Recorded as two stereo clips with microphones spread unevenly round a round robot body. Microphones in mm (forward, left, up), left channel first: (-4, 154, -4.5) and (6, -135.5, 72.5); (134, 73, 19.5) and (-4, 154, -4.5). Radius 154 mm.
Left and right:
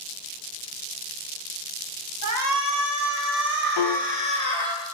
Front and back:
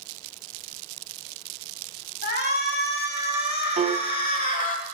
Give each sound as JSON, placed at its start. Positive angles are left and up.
{"t": 2.2, "sound": "a shout", "azimuth_deg": -55, "distance_m": 3.0}
{"t": 3.8, "sound": "a piano", "azimuth_deg": 105, "distance_m": 1.1}